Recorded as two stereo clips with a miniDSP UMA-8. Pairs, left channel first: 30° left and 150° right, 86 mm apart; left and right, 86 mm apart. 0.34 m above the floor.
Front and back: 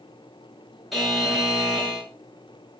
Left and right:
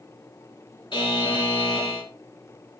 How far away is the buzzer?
About 2.5 m.